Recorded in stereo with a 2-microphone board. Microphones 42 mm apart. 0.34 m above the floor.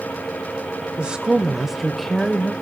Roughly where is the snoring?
No snoring in this recording.